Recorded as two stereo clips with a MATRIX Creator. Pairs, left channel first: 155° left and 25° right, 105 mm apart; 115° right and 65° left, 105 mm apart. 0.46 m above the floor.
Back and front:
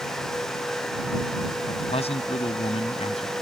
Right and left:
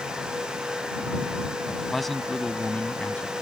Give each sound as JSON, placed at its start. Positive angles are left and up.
{"t": 1.7, "sound": "a man speaking", "azimuth_deg": 155}